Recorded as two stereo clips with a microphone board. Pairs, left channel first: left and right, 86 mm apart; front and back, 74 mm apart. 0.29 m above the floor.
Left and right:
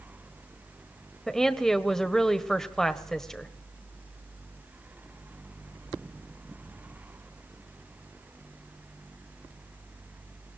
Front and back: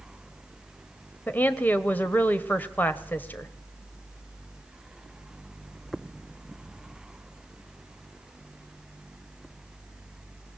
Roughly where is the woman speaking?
Ahead.